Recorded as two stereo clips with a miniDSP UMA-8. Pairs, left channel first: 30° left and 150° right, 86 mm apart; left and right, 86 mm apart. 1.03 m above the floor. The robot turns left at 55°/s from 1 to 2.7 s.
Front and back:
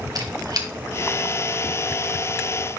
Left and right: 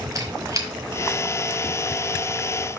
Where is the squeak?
125° right, 1.3 m.